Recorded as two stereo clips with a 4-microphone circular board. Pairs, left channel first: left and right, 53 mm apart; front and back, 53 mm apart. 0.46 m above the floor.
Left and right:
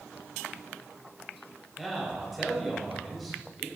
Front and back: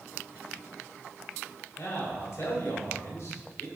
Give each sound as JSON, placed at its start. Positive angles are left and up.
{"t": 1.8, "sound": "a man speaking", "azimuth_deg": -5, "distance_m": 3.0}